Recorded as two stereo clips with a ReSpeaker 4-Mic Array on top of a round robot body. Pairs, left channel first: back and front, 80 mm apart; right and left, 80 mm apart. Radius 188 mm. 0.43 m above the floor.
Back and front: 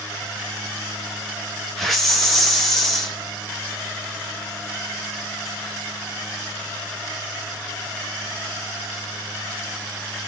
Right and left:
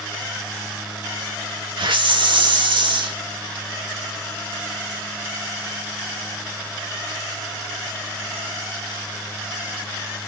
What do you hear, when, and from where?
1.8 s a hiss: 90° left, 1.7 m